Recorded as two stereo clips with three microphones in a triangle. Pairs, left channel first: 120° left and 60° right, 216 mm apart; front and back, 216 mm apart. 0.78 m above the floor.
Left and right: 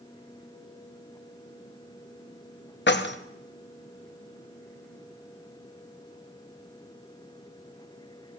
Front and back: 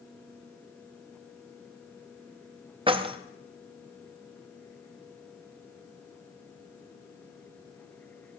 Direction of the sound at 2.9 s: 120° left.